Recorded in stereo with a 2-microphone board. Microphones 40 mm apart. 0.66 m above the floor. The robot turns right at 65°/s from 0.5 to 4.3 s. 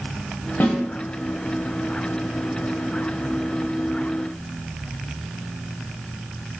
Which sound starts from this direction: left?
A snare drum, at 0.6 s.